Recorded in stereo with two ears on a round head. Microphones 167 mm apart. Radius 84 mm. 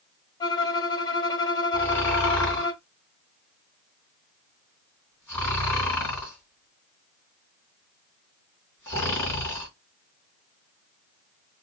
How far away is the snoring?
About 3 m.